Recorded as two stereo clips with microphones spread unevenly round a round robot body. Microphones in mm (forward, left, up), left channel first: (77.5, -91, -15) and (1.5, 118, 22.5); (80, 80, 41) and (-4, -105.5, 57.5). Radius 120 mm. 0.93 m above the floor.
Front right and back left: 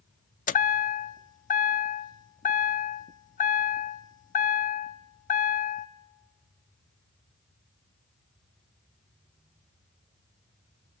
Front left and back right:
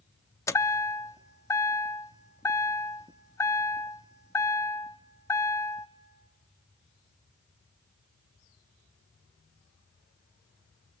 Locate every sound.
0.5 s a chime: 10° right, 0.6 m